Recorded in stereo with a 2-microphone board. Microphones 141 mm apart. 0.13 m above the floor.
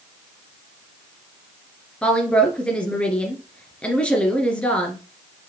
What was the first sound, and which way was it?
A woman speaking, 10° left (ahead or behind).